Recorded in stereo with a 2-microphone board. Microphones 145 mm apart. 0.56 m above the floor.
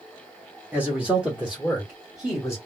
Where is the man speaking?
10° right (ahead or behind), 0.9 m; by 2.6 s centre (ahead or behind), 1.8 m.